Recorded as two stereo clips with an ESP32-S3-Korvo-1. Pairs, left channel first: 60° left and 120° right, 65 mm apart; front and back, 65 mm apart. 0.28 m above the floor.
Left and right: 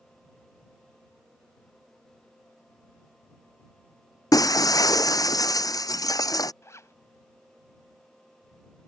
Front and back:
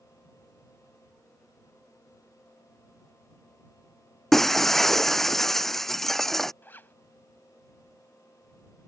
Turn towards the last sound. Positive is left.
turn(degrees=45)